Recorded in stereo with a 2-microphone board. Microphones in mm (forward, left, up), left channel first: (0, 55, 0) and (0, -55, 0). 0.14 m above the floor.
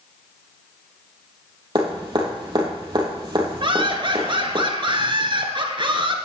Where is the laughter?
50° right (ahead or behind), 1.7 m.